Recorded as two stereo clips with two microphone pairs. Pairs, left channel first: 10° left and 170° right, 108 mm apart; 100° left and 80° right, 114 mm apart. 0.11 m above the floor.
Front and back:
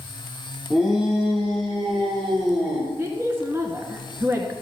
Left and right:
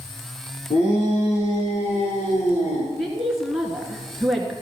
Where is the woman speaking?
155° right, 1.4 m.